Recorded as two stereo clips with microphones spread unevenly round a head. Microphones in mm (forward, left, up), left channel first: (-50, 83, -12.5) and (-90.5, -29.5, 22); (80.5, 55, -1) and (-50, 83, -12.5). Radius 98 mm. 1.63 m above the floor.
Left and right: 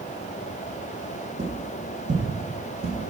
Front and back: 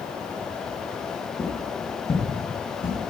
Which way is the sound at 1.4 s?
90° right.